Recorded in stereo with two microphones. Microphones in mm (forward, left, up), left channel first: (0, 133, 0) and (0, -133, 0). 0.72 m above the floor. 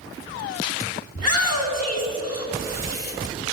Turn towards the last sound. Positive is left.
turn(degrees=80)